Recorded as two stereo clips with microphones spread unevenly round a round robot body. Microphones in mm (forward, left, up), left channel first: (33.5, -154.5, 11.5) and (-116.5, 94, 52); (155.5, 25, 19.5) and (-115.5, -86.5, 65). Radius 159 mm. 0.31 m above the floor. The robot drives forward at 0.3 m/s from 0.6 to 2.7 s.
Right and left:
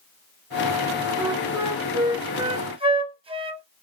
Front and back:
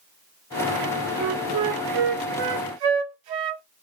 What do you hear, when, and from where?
1.2 s a flute: 150° right, 0.7 m; by 3.6 s 165° right, 1.1 m